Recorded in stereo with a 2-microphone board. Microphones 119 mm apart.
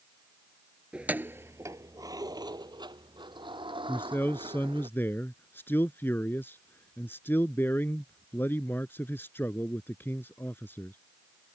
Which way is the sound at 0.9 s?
10° right (ahead or behind).